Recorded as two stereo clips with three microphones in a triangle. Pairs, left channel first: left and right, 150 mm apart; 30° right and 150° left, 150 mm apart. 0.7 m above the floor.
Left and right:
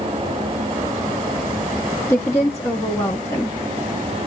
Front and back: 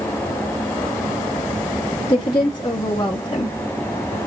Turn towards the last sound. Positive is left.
turn(degrees=25)